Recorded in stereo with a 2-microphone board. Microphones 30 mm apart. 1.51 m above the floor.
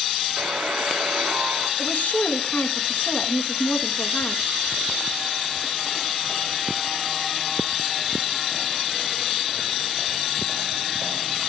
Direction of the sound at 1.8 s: 70° left (ahead or behind).